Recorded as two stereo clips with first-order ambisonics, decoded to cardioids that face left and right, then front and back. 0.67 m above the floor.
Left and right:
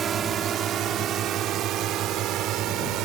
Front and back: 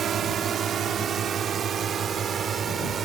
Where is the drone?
140° right; by 3.1 s 120° right.